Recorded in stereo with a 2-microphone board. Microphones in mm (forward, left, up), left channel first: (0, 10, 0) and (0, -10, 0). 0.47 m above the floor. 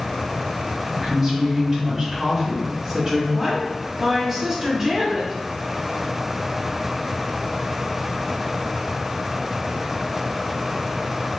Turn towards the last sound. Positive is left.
turn(degrees=-30)  # may be behind; listen again after turning